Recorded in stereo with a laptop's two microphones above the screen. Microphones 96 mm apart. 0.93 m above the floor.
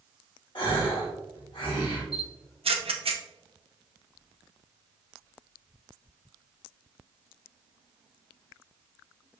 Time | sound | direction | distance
0.6 | a gasp | 60° left (ahead or behind) | 1.5 m
2.1 | a camera shutter | 80° right | 0.6 m